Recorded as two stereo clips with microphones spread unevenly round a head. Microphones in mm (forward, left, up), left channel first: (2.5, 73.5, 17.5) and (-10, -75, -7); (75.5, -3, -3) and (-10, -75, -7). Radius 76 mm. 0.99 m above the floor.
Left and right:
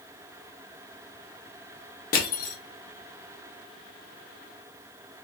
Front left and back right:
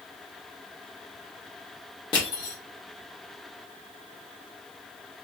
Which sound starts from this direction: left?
Crushing, at 2.1 s.